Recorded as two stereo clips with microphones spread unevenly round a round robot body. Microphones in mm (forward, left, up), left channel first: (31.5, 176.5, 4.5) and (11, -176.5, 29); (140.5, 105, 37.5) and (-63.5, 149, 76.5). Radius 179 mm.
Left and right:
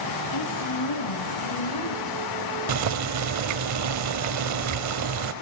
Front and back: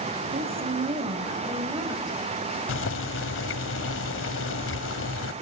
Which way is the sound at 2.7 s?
45° right.